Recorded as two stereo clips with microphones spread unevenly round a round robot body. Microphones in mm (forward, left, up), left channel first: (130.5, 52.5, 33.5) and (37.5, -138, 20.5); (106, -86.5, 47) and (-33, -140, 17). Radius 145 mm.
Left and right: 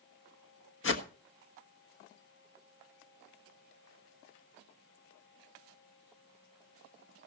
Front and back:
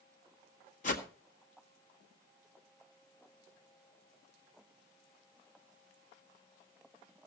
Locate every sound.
0.8 s a whoosh: 65° left, 1.6 m